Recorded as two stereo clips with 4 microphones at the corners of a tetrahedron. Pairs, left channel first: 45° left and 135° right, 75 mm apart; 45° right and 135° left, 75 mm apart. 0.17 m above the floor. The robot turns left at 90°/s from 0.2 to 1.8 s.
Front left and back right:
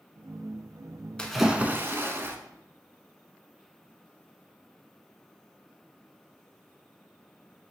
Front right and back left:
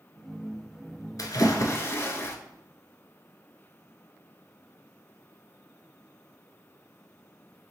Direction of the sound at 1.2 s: 30° right.